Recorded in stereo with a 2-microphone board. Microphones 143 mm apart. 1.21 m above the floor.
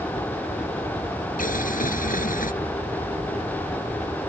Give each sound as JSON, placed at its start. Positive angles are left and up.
{"t": 1.4, "sound": "boiling", "side_deg": 75}